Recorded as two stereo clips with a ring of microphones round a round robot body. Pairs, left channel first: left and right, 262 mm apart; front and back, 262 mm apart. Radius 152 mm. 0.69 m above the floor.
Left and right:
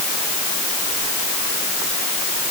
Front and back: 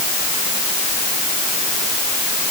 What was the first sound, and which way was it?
Only background noise.